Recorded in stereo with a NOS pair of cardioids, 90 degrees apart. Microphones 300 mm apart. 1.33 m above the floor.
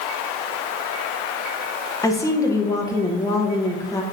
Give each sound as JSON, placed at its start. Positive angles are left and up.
{"t": 2.0, "sound": "a woman speaking", "azimuth_deg": 10, "distance_m": 0.7}